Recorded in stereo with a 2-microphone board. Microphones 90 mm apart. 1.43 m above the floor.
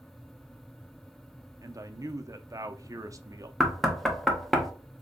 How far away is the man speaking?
About 0.5 m.